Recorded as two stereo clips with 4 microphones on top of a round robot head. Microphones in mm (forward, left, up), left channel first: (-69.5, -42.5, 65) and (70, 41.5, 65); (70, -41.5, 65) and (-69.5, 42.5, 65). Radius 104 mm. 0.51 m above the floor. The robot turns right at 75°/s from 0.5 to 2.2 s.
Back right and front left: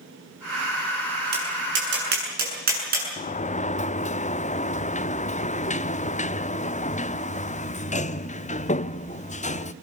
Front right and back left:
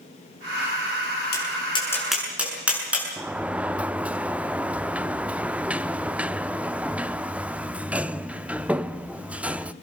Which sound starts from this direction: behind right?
A sliding door, at 3.2 s.